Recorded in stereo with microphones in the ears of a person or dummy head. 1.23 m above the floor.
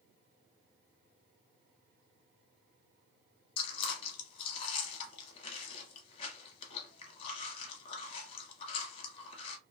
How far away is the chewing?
About 0.9 m.